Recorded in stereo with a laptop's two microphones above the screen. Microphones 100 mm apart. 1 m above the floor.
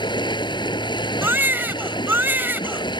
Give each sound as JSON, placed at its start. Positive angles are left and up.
{"t": 0.0, "sound": "running water", "side_deg": 50}
{"t": 1.2, "sound": "a baby crying", "side_deg": -20}